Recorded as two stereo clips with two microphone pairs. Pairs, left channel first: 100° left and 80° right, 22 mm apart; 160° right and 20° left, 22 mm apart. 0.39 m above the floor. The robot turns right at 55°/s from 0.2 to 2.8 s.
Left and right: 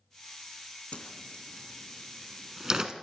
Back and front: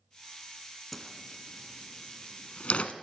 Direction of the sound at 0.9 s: 115° left.